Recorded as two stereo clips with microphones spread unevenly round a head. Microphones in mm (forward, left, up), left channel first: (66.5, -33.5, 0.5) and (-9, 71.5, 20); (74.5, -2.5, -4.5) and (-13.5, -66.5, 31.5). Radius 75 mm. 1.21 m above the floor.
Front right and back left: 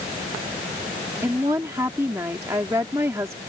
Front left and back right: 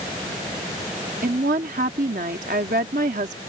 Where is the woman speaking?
160° right.